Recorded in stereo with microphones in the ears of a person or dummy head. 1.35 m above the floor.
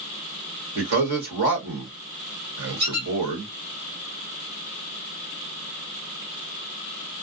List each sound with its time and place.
0.8 s a man speaking: 60° right (ahead or behind), 1.2 m
2.8 s a squeak: 25° right (ahead or behind), 1.7 m